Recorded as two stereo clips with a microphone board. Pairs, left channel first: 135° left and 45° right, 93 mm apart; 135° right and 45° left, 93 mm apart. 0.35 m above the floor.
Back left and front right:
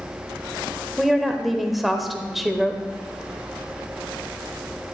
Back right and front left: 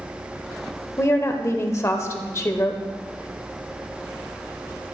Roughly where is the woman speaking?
Behind right.